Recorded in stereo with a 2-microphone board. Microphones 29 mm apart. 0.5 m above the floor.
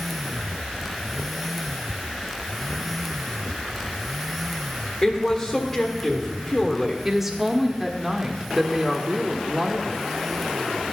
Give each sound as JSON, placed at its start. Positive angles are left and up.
{"t": 5.0, "sound": "a woman speaking", "side_deg": 15, "distance_m": 1.5}
{"t": 7.0, "sound": "a woman speaking", "side_deg": -10, "distance_m": 0.9}